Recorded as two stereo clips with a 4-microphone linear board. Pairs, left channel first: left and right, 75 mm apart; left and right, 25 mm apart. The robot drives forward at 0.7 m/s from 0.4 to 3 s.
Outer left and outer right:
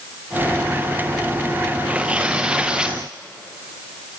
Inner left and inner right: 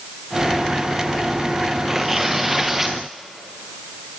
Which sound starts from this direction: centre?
Tearing paper, at 1.9 s.